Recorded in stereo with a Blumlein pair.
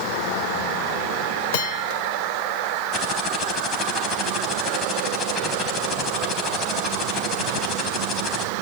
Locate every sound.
1.5 s a bell: 50° left, 2 m
2.9 s typing on a keyboard: 20° left, 4 m